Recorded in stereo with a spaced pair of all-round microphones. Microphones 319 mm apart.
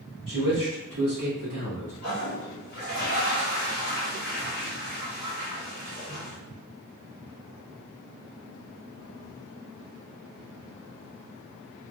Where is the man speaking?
80° right, 1.7 m; by 1.9 s 65° right (ahead or behind), 1.3 m.